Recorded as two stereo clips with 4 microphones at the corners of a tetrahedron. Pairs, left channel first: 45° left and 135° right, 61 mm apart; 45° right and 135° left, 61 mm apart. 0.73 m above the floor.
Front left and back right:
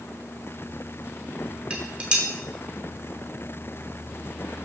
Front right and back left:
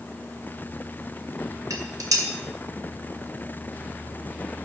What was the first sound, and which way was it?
Dishes clattering, 155° left.